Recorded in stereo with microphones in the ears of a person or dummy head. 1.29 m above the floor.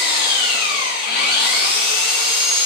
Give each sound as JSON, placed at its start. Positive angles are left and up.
{"t": 0.0, "sound": "an engine running", "side_deg": 55, "distance_m": 1.1}